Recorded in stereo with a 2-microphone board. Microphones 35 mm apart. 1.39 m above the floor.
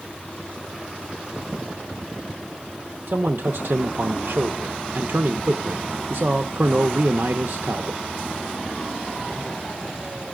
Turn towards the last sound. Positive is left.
turn(degrees=-80)